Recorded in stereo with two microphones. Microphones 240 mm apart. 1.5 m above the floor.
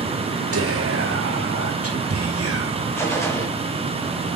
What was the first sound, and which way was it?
Whispering, 75° right (ahead or behind).